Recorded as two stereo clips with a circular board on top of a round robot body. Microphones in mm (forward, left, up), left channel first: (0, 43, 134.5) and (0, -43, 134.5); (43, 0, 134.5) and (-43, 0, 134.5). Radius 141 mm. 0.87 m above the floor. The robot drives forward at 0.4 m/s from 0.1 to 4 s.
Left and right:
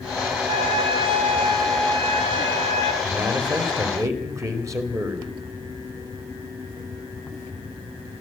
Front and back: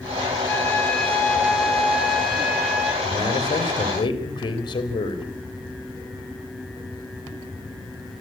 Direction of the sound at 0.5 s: 70° right.